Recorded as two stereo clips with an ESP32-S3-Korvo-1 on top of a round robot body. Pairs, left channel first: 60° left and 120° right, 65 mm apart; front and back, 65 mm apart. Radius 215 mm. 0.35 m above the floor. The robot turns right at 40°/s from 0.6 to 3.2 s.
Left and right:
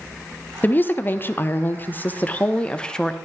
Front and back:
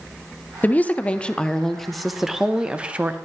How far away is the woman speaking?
About 1.0 m.